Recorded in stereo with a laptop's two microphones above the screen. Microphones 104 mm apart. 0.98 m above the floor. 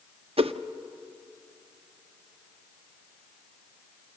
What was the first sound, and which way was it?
A whoosh, 65° right (ahead or behind).